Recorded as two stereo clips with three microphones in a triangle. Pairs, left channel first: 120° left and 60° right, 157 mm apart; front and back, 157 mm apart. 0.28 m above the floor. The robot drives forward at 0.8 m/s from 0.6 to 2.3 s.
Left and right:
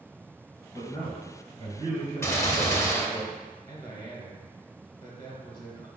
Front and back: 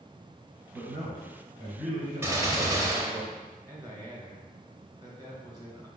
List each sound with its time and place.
0.7 s a man speaking: 175° left, 1.7 m; by 3.2 s straight behind, 3 m
2.2 s a gunshot: 145° left, 0.6 m; by 3.3 s 155° left, 0.7 m
3.7 s a man speaking: 145° left, 1.1 m